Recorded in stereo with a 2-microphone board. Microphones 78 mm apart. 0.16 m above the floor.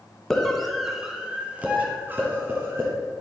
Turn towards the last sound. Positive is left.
turn(degrees=-35)  # may be behind; listen again after turning